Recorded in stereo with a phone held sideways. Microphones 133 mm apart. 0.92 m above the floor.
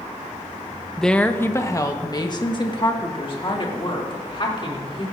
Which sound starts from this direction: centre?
A woman speaking, at 1.0 s.